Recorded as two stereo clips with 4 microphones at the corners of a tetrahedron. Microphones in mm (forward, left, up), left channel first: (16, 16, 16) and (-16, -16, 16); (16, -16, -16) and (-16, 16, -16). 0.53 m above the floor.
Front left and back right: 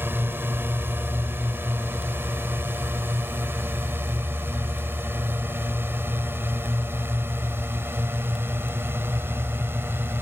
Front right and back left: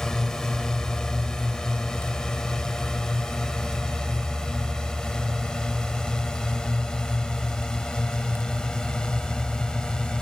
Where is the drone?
125° right; by 10.2 s 120° right.